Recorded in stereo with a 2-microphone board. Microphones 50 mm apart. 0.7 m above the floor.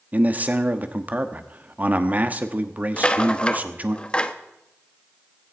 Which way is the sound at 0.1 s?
35° right (ahead or behind).